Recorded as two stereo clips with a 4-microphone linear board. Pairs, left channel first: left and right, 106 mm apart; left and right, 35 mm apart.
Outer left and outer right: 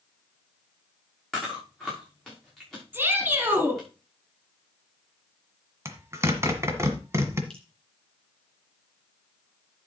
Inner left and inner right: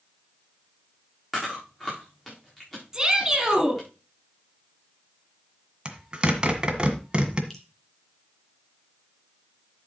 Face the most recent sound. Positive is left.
turn(degrees=5)  # may be behind; listen again after turning